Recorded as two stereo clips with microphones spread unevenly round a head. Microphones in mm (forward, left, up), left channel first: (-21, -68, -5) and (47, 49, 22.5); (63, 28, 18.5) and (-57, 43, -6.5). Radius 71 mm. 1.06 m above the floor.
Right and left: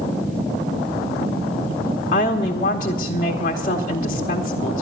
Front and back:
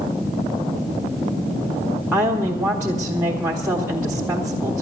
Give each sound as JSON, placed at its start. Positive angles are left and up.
{"t": 2.1, "sound": "a woman speaking", "azimuth_deg": -115, "distance_m": 1.0}